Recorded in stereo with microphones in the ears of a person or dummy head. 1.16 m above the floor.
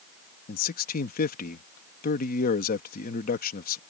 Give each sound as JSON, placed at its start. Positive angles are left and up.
{"t": 0.5, "sound": "a man speaking", "side_deg": 45}